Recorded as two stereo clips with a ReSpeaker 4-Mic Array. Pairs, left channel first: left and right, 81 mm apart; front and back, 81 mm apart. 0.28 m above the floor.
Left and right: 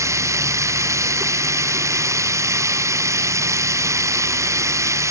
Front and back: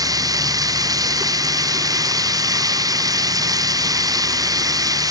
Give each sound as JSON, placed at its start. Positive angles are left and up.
{"t": 0.0, "sound": "running water", "azimuth_deg": -140}